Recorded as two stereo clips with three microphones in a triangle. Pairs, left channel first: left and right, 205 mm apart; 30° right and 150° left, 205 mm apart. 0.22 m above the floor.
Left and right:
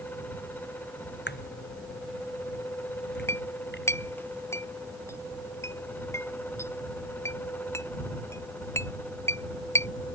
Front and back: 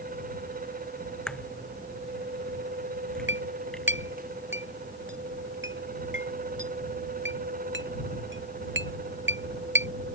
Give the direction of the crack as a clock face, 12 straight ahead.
10 o'clock.